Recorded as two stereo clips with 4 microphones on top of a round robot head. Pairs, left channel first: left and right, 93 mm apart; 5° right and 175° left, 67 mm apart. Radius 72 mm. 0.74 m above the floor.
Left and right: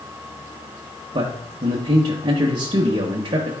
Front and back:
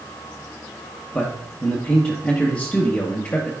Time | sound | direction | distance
1.1 | a man speaking | 75° right | 0.8 m